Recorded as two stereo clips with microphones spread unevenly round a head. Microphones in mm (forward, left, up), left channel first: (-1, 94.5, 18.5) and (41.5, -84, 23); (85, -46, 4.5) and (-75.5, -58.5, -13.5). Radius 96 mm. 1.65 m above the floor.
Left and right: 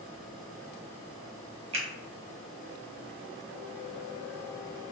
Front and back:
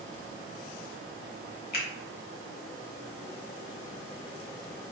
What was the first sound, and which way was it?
A finger snap, 20° right.